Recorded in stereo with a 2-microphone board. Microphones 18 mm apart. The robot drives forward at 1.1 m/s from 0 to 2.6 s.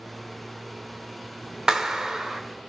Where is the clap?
35° right (ahead or behind), 1.2 m; by 2.4 s 30° right (ahead or behind), 1.5 m.